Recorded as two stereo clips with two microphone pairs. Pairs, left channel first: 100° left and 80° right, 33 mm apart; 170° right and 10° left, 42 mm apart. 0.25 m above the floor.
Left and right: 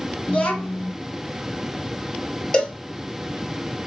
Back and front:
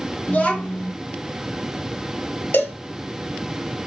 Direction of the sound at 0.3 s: 140° left.